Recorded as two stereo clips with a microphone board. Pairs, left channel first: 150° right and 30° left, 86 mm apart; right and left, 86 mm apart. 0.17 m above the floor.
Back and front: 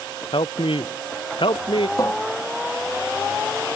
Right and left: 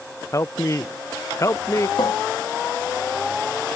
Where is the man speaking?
140° right.